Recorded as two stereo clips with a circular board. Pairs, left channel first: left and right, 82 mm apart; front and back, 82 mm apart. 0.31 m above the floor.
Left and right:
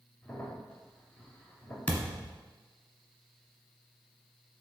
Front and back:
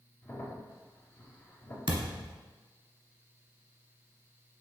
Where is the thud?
165° left, 1.0 m.